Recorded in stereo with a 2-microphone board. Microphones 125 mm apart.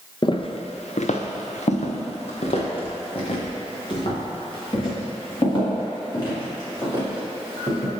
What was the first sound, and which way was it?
Footsteps, 40° left (ahead or behind).